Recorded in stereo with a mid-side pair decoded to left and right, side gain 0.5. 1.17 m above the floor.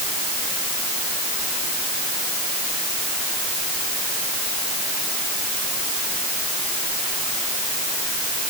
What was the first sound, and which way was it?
Only background noise.